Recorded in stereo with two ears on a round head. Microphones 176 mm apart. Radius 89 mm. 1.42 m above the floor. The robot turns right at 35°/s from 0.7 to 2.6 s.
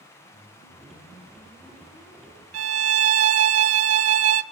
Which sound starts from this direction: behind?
A whoosh, at 0.3 s.